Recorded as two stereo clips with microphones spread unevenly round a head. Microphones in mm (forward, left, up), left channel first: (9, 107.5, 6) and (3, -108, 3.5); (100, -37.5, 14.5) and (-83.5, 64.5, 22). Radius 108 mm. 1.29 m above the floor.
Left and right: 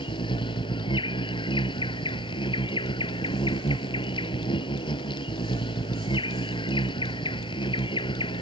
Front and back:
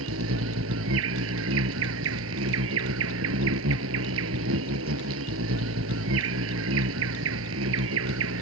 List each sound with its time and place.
0.0 s an insect: 155° left